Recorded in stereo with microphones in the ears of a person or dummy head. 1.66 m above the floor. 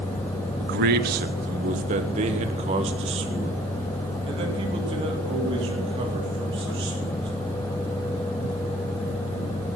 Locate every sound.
0.6 s a man speaking: 65° right (ahead or behind), 0.6 m; by 7.3 s 30° right (ahead or behind), 4.5 m